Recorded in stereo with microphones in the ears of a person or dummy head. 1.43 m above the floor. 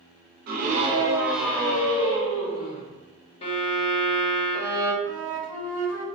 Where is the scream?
55° right (ahead or behind), 0.7 m; by 2.8 s 40° left (ahead or behind), 1.3 m.